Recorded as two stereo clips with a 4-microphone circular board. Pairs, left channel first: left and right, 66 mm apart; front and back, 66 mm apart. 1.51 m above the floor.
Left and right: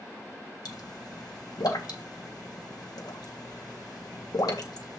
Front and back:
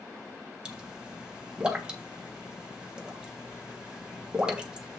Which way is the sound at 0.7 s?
100° left.